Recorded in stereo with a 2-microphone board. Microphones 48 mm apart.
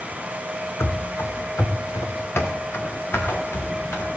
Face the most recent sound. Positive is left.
turn(degrees=60)  # may be behind; listen again after turning